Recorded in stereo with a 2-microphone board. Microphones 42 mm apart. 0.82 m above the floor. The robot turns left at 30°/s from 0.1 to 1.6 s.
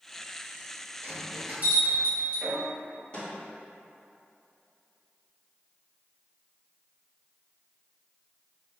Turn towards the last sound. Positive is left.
turn(degrees=30)  # may be behind; listen again after turning